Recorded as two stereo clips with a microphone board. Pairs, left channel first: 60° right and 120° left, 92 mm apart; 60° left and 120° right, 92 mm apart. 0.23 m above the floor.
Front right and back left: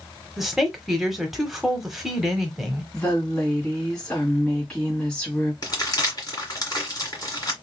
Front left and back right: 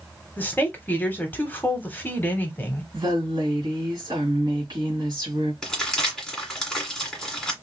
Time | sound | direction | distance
0.4 | a woman speaking | 40° left | 1.0 m
2.9 | a woman speaking | 140° right | 1.9 m
5.6 | crumpling | 25° right | 1.7 m